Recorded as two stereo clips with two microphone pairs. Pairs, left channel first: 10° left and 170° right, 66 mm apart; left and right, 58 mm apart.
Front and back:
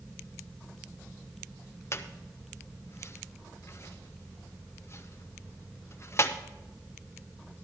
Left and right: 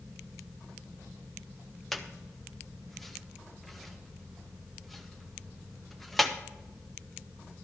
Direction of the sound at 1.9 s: 5° right.